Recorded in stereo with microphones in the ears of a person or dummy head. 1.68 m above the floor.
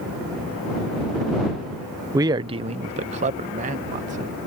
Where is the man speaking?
15° right (ahead or behind); by 4.3 s 45° right (ahead or behind).